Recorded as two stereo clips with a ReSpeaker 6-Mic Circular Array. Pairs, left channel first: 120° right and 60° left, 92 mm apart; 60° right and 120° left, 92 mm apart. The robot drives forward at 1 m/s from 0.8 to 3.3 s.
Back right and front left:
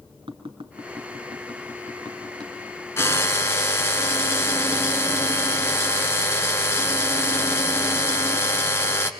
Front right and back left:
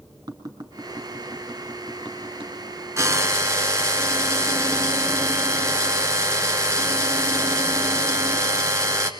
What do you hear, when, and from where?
0.3 s tapping: 70° left, 3.5 m; by 2.5 s 100° left, 3.5 m
3.0 s a drill: straight behind, 1.7 m